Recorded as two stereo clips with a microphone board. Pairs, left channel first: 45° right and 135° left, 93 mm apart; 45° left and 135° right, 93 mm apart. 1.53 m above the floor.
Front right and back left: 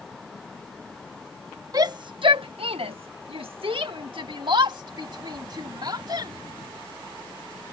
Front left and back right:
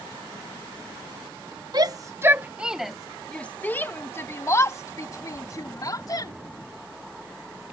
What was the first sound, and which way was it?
A shout, 175° right.